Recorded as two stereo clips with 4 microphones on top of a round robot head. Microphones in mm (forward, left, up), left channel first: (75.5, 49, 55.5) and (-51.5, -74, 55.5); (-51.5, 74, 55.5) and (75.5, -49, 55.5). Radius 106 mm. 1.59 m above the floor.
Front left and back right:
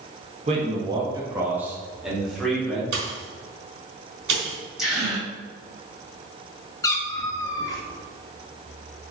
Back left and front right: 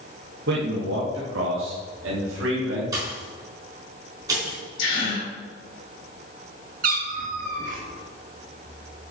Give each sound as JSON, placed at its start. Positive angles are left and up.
{"t": 0.5, "sound": "a man speaking", "azimuth_deg": -80, "distance_m": 1.7}
{"t": 2.9, "sound": "a pop", "azimuth_deg": -115, "distance_m": 3.5}
{"t": 4.8, "sound": "a gasp", "azimuth_deg": 140, "distance_m": 4.5}
{"t": 6.8, "sound": "a cat meowing", "azimuth_deg": -20, "distance_m": 1.1}